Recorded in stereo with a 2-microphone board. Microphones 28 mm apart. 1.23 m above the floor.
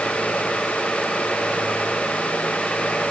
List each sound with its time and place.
Only background noise.